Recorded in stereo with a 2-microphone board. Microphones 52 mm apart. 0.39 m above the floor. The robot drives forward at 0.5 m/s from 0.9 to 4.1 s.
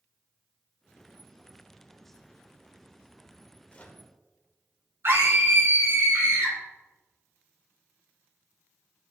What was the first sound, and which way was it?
A microwave, 25° left (ahead or behind).